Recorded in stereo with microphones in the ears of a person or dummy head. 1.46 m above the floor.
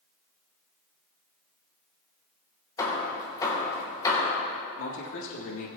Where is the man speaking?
75° left (ahead or behind), 3.5 m.